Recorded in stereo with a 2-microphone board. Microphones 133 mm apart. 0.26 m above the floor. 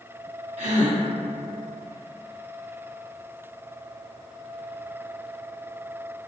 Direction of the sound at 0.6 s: 60° right (ahead or behind).